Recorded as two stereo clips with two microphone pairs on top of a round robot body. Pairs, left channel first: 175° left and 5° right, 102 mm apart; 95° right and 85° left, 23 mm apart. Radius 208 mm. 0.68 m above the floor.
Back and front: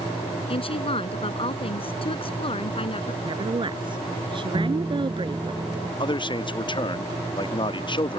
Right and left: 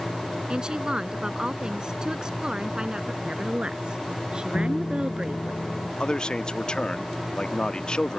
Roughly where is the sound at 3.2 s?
Ahead left.